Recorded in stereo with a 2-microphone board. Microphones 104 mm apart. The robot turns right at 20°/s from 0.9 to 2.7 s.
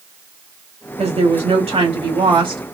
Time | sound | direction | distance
1.0 | a woman speaking | 80° right | 1.7 m